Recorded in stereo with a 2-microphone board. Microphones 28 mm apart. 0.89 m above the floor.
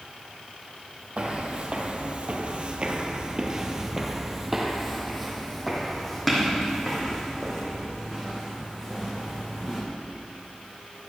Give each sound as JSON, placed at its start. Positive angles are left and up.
{"t": 1.2, "sound": "footsteps", "side_deg": -40, "distance_m": 1.5}